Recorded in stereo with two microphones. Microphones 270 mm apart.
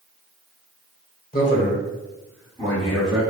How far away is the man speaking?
About 1.3 m.